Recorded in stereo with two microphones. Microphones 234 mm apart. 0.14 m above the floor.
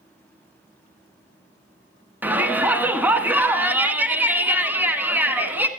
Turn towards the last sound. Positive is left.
turn(degrees=-5)  # may be behind; listen again after turning